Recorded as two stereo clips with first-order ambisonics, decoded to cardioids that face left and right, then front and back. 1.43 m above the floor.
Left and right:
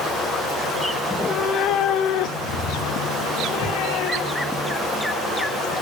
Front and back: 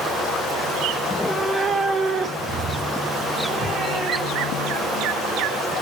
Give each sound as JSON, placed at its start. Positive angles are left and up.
{"t": 1.0, "sound": "a cat meowing", "azimuth_deg": -15, "distance_m": 0.7}